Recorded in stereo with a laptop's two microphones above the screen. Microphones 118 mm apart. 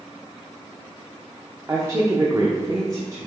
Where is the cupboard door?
No cupboard door in this recording.